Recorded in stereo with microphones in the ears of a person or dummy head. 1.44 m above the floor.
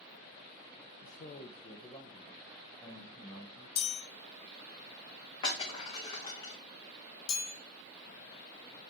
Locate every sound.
1.0 s a man speaking: 45° left (ahead or behind), 0.5 m; by 3.7 s 15° left (ahead or behind), 2 m
3.8 s a chime: 60° left (ahead or behind), 1.5 m
5.4 s breaking glass: 25° left (ahead or behind), 2 m
7.3 s a chime: 70° left (ahead or behind), 3 m